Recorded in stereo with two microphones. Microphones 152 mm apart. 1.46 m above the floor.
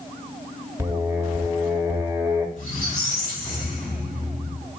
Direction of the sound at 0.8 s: 15° right (ahead or behind).